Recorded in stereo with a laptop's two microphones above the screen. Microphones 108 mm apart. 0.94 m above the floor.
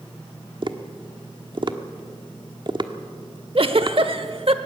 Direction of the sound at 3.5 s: 55° right (ahead or behind).